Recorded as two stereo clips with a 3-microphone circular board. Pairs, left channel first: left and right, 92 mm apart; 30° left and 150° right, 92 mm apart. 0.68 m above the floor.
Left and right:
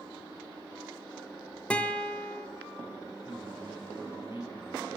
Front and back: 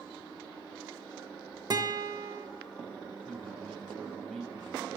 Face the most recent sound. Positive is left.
turn(degrees=120)